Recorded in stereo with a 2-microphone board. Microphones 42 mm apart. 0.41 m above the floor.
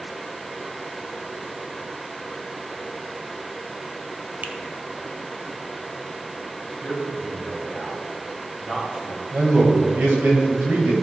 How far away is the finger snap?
About 0.8 m.